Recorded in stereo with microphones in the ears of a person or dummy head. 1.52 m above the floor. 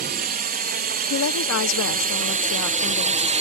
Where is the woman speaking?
80° left.